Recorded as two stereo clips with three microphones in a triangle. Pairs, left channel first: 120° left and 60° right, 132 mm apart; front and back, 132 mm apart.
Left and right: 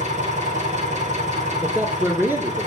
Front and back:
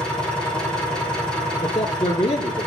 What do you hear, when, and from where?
0.0 s an engine running: 85° right, 6 m
1.6 s a man speaking: 10° left, 2.5 m